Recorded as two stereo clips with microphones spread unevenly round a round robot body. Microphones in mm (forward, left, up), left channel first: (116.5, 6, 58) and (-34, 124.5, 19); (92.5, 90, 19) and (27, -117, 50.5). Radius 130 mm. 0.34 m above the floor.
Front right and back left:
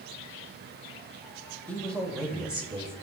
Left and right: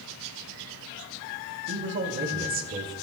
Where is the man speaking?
130° right, 2 m; by 2.9 s 165° right, 1.7 m.